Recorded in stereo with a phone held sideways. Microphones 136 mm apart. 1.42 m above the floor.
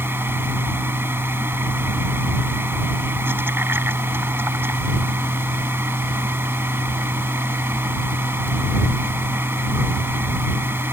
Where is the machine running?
15° right (ahead or behind).